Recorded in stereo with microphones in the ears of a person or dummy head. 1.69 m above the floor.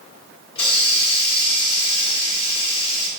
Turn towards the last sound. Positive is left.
turn(degrees=25)  # may be behind; listen again after turning